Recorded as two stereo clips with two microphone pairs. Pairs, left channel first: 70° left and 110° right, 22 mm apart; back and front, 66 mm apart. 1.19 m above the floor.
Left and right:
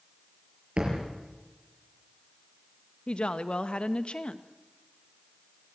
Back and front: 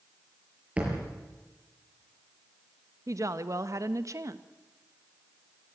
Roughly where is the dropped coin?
I don't hear a dropped coin.